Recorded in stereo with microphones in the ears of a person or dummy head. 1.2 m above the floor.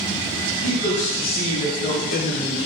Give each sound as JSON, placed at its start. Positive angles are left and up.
{"t": 0.6, "sound": "a man speaking", "side_deg": 30, "distance_m": 1.6}